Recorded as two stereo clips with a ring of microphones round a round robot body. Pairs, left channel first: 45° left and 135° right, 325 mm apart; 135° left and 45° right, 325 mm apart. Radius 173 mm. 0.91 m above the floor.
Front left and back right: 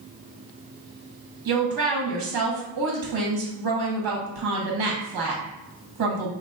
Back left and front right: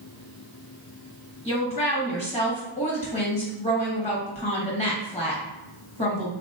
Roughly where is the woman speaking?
Behind right.